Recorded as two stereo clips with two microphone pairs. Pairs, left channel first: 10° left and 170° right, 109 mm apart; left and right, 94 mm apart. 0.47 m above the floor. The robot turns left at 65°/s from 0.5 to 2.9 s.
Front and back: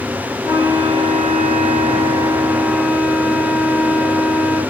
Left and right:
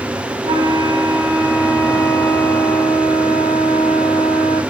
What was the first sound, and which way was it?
A flute, 85° right.